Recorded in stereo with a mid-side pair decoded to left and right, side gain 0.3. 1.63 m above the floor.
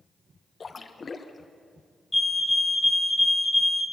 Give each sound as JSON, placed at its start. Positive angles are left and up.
{"t": 0.6, "sound": "a splash", "azimuth_deg": 45, "distance_m": 1.6}
{"t": 2.1, "sound": "a fire alarm", "azimuth_deg": 20, "distance_m": 2.5}